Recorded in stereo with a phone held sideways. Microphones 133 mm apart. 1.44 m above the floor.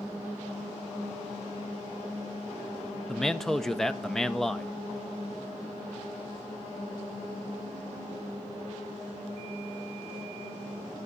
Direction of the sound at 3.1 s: 5° left (ahead or behind).